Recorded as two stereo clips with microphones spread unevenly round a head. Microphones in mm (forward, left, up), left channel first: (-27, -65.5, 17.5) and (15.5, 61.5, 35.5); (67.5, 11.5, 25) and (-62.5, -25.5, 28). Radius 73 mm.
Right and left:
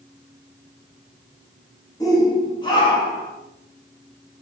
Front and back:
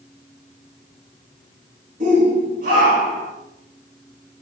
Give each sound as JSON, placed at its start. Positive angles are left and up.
{"t": 2.0, "sound": "a shout", "azimuth_deg": -165, "distance_m": 1.8}